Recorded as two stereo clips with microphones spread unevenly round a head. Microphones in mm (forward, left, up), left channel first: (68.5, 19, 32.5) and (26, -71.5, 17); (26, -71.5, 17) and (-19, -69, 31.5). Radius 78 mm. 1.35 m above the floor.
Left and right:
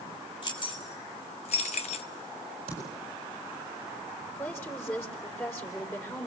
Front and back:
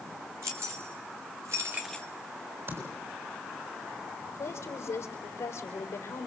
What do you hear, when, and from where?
0.4 s keys jangling: 125° left, 2.5 m; by 2.1 s 75° left, 0.5 m
2.7 s typing on a keyboard: 160° right, 7.5 m
4.3 s a woman speaking: 5° right, 4 m